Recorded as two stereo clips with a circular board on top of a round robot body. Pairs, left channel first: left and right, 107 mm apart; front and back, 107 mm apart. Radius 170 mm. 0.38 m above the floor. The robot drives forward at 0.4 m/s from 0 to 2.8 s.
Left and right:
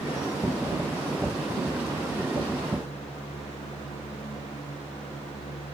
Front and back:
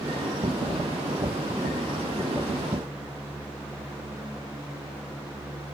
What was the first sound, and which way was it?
Only background noise.